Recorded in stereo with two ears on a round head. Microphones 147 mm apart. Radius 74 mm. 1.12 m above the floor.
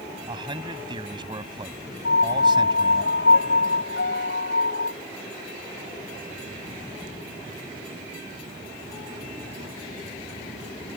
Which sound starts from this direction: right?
A man speaking, at 0.3 s.